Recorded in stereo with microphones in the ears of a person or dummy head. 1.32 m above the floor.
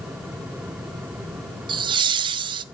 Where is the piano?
I don't hear a piano.